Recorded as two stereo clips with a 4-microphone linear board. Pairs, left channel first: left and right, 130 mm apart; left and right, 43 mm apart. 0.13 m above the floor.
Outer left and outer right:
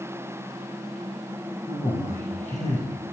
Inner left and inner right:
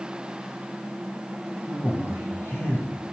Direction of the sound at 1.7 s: 60° left (ahead or behind).